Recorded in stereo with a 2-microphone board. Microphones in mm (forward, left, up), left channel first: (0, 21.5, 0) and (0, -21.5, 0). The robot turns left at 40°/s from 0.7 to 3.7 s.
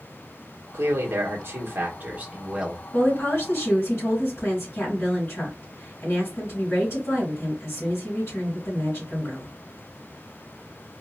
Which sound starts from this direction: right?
A man speaking, at 0.7 s.